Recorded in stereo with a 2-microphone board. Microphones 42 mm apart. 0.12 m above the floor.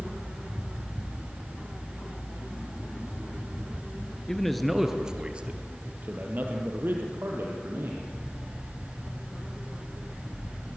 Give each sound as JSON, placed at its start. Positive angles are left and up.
{"t": 4.3, "sound": "a man speaking", "side_deg": 10, "distance_m": 1.9}